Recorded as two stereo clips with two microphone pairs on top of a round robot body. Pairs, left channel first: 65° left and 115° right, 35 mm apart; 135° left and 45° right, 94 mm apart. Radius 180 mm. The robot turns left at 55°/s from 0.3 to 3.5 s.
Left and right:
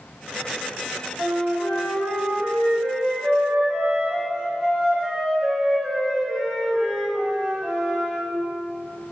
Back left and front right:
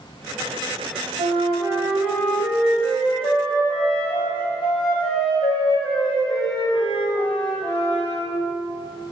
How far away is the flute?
About 1.2 m.